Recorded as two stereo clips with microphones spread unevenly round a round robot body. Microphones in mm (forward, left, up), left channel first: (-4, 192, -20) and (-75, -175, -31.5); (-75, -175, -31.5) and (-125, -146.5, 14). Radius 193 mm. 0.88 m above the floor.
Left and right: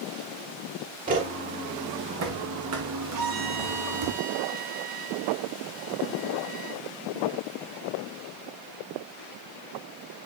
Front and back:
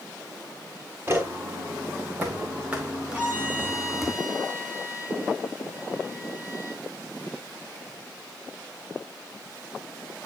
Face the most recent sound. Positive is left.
turn(degrees=-140)